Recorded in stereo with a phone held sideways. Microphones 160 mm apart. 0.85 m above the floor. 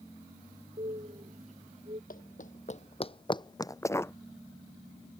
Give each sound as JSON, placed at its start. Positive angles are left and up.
{"t": 0.8, "sound": "a bird", "side_deg": -45}
{"t": 2.1, "sound": "running footsteps", "side_deg": 60}